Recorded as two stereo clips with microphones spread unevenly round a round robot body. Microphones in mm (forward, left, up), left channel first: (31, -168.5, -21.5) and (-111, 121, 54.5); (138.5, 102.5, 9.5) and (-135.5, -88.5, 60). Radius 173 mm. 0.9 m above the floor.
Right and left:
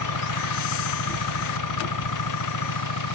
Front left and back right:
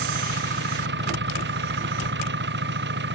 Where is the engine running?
85° right.